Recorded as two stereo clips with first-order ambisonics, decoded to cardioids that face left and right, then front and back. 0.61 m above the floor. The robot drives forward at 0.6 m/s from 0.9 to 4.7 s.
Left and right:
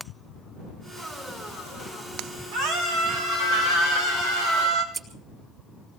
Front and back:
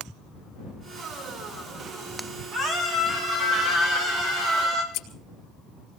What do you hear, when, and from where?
2.5 s a scream: 120° right, 5 m; by 4.8 s 130° right, 6 m
4.9 s scissors: 25° right, 3 m